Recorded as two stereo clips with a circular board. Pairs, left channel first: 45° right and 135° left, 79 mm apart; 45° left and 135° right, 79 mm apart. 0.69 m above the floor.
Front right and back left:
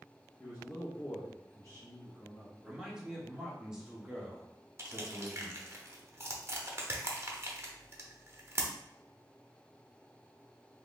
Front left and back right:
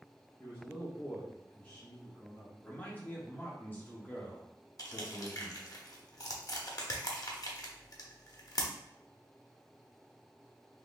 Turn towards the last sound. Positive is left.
turn(degrees=80)